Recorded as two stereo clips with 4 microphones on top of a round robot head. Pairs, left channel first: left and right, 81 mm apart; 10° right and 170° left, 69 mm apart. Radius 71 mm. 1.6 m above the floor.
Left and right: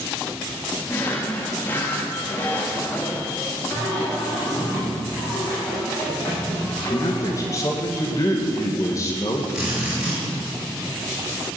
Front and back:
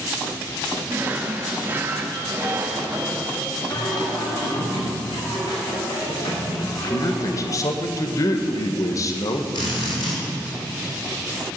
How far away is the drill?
About 6 m.